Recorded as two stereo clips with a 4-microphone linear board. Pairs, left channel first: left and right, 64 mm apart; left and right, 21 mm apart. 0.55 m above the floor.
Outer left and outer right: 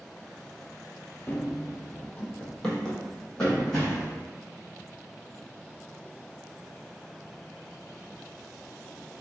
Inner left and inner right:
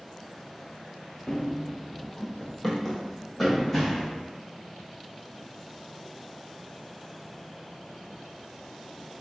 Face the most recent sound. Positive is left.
turn(degrees=5)  # may be behind; listen again after turning